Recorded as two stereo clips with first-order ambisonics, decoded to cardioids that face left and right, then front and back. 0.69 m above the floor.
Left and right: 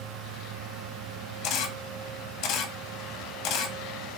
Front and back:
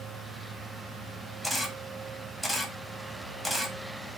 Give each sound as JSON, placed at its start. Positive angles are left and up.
{"t": 1.4, "sound": "a camera shutter", "azimuth_deg": 90, "distance_m": 0.7}